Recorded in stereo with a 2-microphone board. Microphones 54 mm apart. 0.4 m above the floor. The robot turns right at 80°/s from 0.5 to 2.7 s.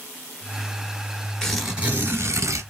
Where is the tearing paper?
165° left, 1.4 m; by 2.6 s 95° right, 1.4 m.